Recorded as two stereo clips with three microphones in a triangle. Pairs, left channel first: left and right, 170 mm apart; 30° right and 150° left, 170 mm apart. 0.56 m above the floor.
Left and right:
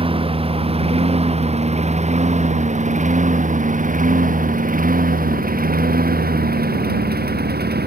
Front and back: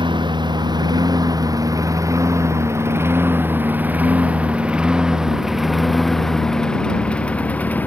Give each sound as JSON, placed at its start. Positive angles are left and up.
{"t": 0.0, "sound": "a lawn mower", "azimuth_deg": -145}